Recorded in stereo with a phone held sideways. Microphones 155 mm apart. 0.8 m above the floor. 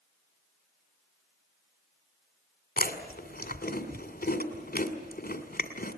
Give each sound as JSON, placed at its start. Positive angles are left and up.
{"t": 2.8, "sound": "chewing", "side_deg": 75, "distance_m": 2.0}